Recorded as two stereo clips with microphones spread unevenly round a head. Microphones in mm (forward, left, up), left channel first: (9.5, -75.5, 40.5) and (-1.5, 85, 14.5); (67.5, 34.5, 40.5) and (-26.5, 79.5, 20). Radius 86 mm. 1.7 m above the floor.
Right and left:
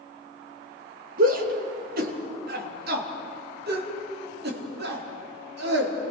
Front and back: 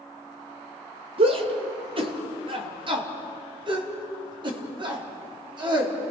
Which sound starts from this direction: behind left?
A shout, at 1.2 s.